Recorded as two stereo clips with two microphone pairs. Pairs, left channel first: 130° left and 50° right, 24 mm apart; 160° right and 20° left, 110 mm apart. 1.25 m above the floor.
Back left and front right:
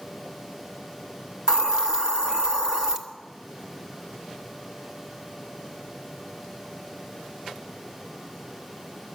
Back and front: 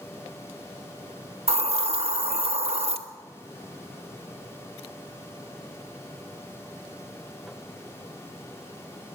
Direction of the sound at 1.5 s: 10° left.